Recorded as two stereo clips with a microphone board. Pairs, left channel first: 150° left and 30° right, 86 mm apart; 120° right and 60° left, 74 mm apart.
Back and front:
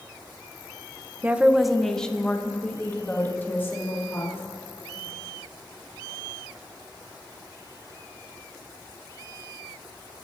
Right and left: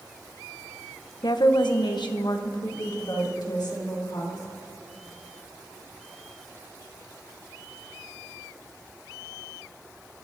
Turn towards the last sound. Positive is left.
turn(degrees=-150)